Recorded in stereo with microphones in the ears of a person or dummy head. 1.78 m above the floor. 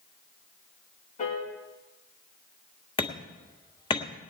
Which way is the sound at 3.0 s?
20° left (ahead or behind).